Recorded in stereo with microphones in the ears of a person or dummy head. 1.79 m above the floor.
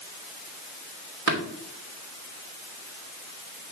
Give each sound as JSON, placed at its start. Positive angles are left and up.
{"t": 1.3, "sound": "tapping", "side_deg": -65, "distance_m": 3.0}